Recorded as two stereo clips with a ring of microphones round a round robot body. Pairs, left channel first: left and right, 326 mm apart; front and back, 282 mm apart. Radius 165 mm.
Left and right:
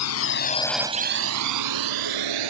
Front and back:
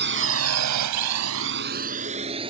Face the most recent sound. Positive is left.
turn(degrees=-105)